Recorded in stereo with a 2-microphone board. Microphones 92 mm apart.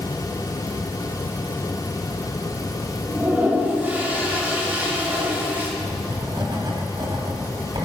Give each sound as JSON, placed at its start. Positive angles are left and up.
{"t": 3.1, "sound": "a toilet flushing", "side_deg": -20, "distance_m": 2.5}
{"t": 5.8, "sound": "writing", "side_deg": -55, "distance_m": 3.0}